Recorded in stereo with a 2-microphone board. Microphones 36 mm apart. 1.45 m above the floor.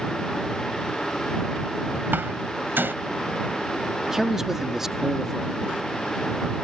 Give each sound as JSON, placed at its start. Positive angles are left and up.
{"t": 2.1, "sound": "a door slam", "side_deg": -85}
{"t": 4.0, "sound": "a man speaking", "side_deg": -10}